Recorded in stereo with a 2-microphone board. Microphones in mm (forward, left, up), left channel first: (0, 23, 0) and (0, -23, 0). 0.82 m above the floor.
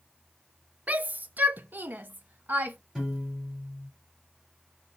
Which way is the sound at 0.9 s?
30° right (ahead or behind).